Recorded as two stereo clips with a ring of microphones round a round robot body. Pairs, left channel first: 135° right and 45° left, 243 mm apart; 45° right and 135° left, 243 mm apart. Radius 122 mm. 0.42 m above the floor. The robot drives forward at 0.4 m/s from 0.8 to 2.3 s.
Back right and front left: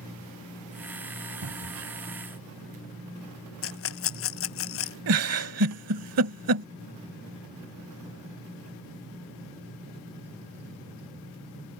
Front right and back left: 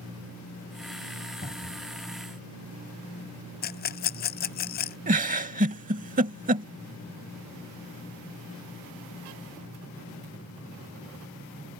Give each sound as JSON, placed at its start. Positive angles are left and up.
{"t": 1.4, "sound": "a cupboard door", "azimuth_deg": 20}
{"t": 3.6, "sound": "a rattle", "azimuth_deg": -100}
{"t": 5.1, "sound": "a giggle", "azimuth_deg": 75}